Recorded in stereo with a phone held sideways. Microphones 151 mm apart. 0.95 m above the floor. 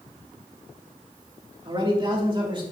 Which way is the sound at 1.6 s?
35° right (ahead or behind).